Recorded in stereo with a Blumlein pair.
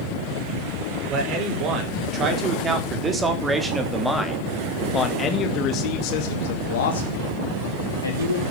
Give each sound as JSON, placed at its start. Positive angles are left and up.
{"t": 1.1, "sound": "a man speaking", "azimuth_deg": -35, "distance_m": 5.5}